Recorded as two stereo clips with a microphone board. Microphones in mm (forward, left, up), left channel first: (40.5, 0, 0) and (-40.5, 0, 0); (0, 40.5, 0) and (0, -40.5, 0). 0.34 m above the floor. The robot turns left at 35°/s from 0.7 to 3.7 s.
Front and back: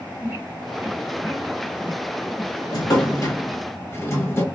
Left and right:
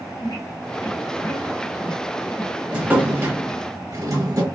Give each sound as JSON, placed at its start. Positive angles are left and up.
{"t": 0.2, "sound": "a squeak", "azimuth_deg": 110, "distance_m": 2.0}
{"t": 2.7, "sound": "a drawer", "azimuth_deg": -15, "distance_m": 0.8}